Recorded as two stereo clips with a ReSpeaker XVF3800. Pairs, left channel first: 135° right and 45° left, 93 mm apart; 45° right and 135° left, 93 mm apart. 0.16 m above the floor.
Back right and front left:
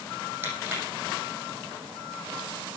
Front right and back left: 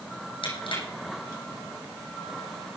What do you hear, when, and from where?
0.4 s crushing: 25° right, 7 m